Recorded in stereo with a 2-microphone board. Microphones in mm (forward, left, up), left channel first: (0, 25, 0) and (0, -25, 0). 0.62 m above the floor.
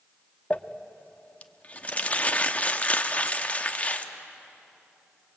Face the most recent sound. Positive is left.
turn(degrees=30)  # may be behind; listen again after turning